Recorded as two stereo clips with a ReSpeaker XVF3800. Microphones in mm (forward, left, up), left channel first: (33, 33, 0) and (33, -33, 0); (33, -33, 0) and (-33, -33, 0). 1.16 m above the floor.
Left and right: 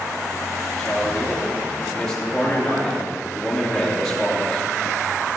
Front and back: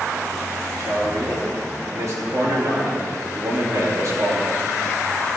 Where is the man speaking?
175° left, 2.5 m.